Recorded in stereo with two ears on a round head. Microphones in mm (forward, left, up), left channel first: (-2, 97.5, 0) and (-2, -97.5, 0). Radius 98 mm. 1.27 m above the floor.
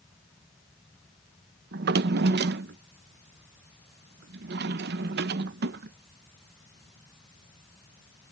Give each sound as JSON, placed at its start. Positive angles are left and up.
{"t": 1.7, "sound": "a drawer", "side_deg": -50}